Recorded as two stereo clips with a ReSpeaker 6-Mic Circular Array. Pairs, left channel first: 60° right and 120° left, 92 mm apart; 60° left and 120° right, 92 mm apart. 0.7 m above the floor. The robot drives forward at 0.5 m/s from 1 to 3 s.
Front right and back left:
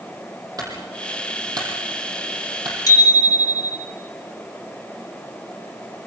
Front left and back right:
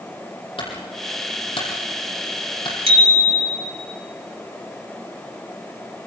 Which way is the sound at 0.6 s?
75° left.